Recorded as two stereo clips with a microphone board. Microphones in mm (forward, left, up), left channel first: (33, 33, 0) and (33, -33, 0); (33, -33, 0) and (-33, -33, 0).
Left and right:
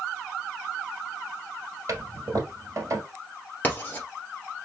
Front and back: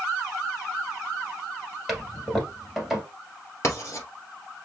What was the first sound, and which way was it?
A toilet flushing, 90° right.